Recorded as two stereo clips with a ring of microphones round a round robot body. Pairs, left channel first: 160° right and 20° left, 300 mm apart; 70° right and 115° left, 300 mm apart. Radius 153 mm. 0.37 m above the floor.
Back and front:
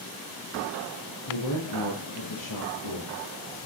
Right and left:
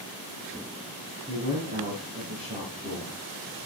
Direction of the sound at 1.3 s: 175° right.